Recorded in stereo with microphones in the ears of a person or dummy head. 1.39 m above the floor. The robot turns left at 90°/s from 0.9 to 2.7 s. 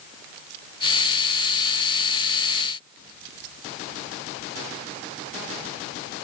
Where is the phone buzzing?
I don't hear a phone buzzing.